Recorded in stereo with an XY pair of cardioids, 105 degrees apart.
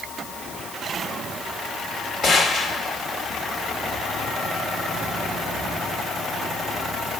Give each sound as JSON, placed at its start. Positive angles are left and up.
{"t": 2.2, "sound": "a gunshot", "azimuth_deg": 60, "distance_m": 3.0}